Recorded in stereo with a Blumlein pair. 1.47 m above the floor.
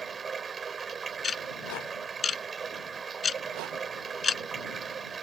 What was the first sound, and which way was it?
Running water, 20° right.